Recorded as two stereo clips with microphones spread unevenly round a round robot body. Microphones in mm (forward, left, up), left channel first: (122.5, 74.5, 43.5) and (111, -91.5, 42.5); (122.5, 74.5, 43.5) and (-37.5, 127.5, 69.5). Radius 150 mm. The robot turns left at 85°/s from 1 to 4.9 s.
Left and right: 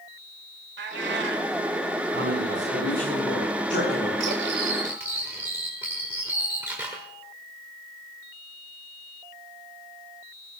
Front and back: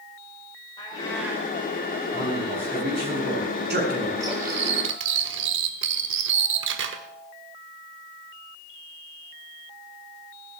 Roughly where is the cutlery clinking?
Behind right.